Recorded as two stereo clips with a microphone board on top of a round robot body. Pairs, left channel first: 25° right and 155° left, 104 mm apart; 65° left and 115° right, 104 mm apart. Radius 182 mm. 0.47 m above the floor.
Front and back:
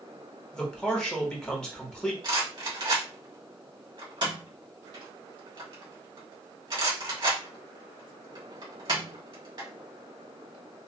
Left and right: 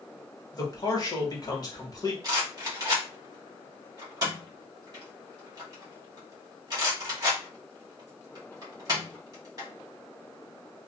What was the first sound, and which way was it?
A man speaking, 55° left.